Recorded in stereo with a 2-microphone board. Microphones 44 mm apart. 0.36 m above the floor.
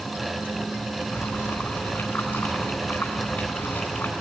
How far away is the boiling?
About 4.5 m.